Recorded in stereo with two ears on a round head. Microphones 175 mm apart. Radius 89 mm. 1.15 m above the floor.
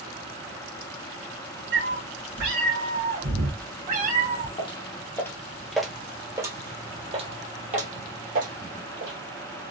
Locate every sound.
1.7 s a cat meowing: 70° right (ahead or behind), 2 m; by 4.5 s 30° right (ahead or behind), 1.4 m
4.6 s footsteps: 25° left (ahead or behind), 1.5 m; by 9.2 s 55° right (ahead or behind), 2.5 m